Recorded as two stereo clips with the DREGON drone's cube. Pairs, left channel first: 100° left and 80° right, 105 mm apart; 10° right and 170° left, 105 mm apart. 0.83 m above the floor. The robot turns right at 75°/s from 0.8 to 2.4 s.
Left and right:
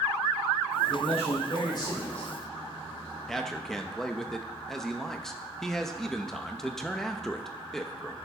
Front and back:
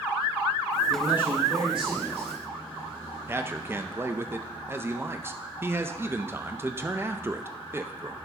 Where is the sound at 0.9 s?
80° left, 3 m; by 2.3 s 175° right, 3 m.